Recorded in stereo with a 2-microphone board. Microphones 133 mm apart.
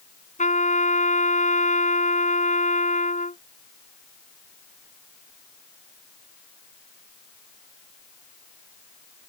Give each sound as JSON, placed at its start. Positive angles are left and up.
{"t": 0.4, "sound": "a trumpet", "side_deg": 80}